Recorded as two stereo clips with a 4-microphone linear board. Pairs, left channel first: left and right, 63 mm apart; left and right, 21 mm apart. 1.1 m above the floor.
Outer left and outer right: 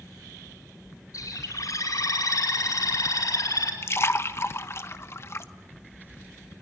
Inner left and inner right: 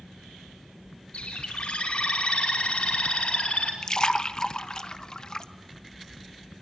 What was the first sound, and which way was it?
A bird, 60° left (ahead or behind).